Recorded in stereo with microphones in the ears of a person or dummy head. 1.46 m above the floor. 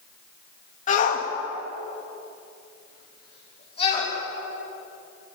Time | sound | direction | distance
0.9 | a shout | 45° left (ahead or behind) | 2.5 m